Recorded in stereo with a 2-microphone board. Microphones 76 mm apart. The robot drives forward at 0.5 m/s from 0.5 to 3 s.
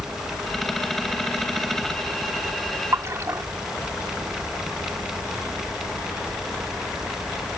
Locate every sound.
2.9 s a splash: 40° right (ahead or behind)